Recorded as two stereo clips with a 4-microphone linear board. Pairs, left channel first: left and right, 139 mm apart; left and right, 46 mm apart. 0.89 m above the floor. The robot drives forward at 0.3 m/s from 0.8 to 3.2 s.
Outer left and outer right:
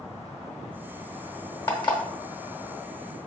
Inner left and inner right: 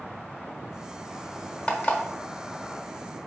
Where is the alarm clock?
30° left (ahead or behind), 1.0 m; by 2.0 s 35° left (ahead or behind), 0.9 m.